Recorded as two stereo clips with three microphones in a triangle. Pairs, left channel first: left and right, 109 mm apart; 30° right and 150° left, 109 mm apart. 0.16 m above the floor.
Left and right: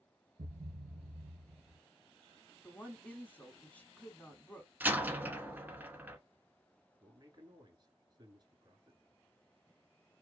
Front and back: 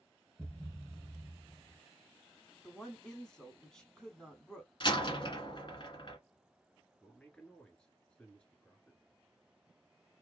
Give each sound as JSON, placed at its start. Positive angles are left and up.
{"t": 0.4, "sound": "a thud", "azimuth_deg": -115, "distance_m": 0.6}
{"t": 2.6, "sound": "a woman speaking", "azimuth_deg": 40, "distance_m": 1.0}
{"t": 4.8, "sound": "a door slam", "azimuth_deg": -20, "distance_m": 1.0}
{"t": 7.0, "sound": "a man speaking", "azimuth_deg": -105, "distance_m": 1.7}